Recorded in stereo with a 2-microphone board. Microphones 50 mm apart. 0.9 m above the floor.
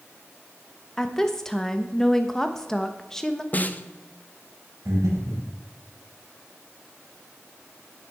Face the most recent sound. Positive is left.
turn(degrees=-85)